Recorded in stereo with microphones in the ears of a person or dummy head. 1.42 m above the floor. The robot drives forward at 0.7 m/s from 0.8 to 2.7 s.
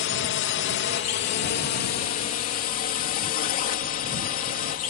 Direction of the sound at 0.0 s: 55° left (ahead or behind).